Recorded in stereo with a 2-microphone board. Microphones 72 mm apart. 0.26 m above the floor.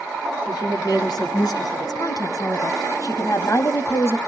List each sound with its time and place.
0.5 s a woman speaking: 65° left (ahead or behind), 3 m; by 4.2 s 35° left (ahead or behind), 1.3 m